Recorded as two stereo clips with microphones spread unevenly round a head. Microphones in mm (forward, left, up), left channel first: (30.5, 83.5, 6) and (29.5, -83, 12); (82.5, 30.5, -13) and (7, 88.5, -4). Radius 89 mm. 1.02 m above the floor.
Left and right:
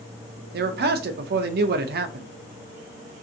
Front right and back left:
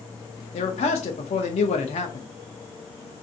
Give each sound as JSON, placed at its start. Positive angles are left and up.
{"t": 0.5, "sound": "a man speaking", "azimuth_deg": -60, "distance_m": 0.6}